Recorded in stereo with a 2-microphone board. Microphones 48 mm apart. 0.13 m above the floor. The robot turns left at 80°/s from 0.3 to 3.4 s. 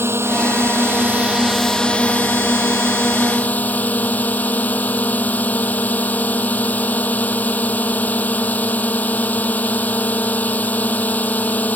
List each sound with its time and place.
0.0 s a drone: 75° right; by 11.8 s 40° left